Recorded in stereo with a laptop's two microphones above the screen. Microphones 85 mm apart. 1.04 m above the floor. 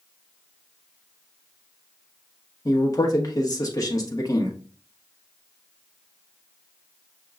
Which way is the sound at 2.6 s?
45° left (ahead or behind).